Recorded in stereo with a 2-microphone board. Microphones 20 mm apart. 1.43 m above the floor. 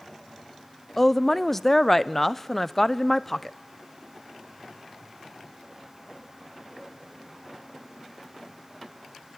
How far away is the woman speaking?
About 0.6 m.